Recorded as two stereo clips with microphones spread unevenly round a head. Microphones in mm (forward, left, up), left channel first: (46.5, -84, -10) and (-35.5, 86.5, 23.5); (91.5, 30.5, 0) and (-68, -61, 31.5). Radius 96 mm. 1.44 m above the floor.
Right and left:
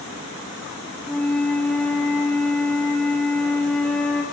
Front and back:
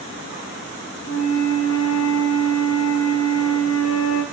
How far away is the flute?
About 3.5 m.